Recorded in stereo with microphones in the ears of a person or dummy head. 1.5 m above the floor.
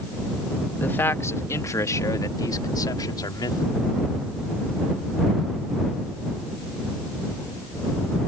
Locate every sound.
0.8 s a man speaking: 15° left (ahead or behind); by 4.0 s 25° left (ahead or behind)